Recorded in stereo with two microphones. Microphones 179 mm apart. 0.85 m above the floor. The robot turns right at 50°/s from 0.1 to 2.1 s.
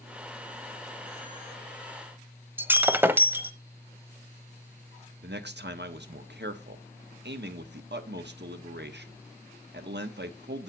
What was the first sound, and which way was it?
Breaking glass, 10° right (ahead or behind).